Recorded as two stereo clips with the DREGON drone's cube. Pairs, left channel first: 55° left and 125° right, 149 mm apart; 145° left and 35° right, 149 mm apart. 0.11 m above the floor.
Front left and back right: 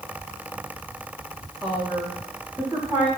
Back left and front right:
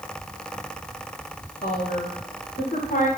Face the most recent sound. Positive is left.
turn(degrees=170)